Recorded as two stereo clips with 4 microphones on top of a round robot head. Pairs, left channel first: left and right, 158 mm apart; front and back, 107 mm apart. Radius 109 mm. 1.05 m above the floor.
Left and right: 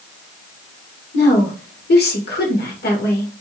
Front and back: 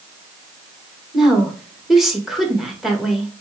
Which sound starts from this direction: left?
A woman speaking, at 1.1 s.